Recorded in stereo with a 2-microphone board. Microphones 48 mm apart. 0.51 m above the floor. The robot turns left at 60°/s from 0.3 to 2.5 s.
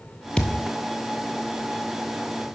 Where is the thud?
20° left (ahead or behind), 0.9 m; by 0.7 s 40° left (ahead or behind), 0.9 m.